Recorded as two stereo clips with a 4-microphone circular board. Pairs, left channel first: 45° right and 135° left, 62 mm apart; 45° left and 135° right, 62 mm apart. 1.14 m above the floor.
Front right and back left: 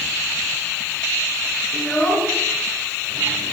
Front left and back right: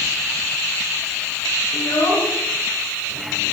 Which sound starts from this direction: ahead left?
A child speaking, at 1.7 s.